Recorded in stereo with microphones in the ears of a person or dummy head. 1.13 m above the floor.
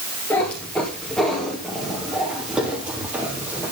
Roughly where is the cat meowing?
Centre.